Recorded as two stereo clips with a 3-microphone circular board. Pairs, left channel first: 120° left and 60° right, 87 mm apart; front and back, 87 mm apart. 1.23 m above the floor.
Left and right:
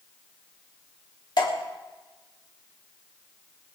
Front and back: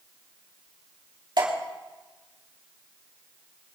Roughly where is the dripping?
Behind left.